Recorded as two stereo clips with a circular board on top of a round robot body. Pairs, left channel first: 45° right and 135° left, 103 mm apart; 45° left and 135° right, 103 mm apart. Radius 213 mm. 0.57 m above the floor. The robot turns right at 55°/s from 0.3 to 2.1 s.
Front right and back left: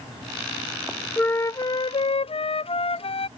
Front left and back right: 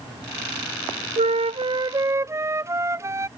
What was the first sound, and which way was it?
A flute, 125° right.